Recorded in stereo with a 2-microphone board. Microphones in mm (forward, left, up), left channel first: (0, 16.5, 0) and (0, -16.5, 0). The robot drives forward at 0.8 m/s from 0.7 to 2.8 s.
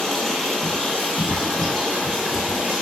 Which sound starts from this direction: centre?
Running water, at 0.0 s.